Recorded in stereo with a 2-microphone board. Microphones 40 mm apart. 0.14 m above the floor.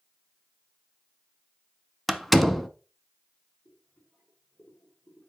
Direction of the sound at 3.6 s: 50° left (ahead or behind).